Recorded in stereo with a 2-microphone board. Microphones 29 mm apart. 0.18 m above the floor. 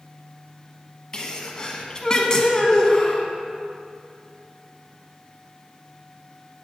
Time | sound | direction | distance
1.1 | a sneeze | 25° left (ahead or behind) | 1.3 m